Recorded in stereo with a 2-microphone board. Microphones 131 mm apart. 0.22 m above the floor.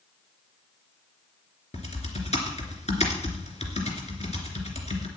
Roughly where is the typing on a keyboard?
Left.